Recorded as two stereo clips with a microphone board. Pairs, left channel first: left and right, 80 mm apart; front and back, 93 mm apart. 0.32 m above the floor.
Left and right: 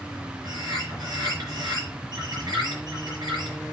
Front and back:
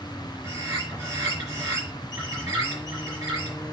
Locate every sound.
0.4 s a bird: 125° right, 7.5 m